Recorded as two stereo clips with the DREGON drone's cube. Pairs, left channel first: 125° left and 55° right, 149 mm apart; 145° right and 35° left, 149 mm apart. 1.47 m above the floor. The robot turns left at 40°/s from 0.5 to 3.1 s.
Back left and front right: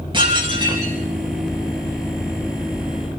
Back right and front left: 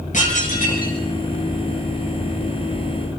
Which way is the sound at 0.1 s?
110° right.